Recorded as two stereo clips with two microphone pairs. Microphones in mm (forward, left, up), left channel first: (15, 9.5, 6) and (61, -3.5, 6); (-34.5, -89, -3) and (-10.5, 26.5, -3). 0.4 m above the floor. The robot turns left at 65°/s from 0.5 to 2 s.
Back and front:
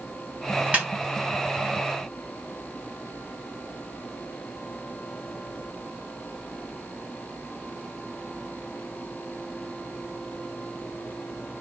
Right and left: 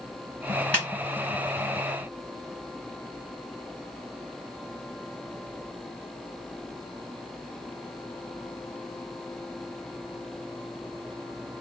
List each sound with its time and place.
0.7 s a snare drum: 35° right, 1.6 m; by 0.9 s 45° right, 1.6 m